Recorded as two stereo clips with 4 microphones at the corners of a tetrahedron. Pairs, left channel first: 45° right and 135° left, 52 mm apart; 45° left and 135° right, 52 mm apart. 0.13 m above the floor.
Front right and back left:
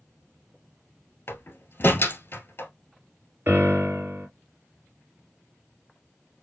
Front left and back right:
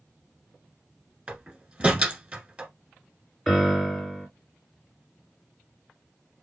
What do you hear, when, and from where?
1.3 s a door slam: 80° right, 1.3 m
3.5 s a piano: 125° left, 2.5 m